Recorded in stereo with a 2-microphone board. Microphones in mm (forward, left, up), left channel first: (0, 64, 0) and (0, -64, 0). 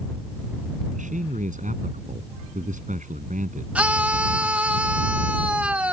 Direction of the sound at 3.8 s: 10° right (ahead or behind).